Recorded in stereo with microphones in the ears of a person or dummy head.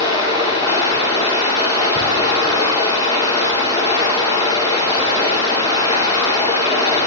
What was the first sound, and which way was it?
Running water, 30° left (ahead or behind).